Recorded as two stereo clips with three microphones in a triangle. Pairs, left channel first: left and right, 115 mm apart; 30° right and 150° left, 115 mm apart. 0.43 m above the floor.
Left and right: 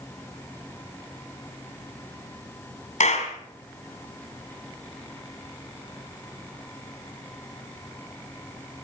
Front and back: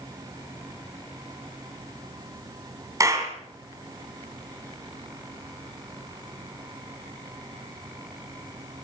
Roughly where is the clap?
Left.